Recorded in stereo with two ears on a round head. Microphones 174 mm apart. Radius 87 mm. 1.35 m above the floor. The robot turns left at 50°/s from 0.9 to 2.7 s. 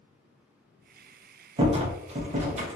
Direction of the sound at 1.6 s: 50° right.